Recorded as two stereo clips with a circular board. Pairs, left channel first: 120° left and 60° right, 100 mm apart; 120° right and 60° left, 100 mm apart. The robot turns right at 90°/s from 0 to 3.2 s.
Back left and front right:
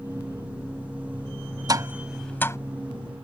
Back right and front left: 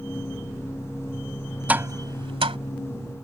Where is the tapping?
15° right; by 2.6 s 65° left.